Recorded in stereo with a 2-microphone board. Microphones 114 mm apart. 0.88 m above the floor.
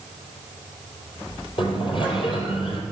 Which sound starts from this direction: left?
A sliding door, at 1.6 s.